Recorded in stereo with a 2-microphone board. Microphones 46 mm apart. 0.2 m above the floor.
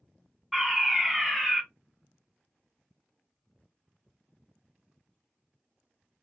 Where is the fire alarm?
Centre (ahead or behind), 2.5 m.